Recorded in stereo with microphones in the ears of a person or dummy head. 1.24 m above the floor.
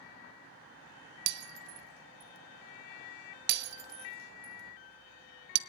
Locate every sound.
1.3 s breaking glass: 60° right (ahead or behind), 0.8 m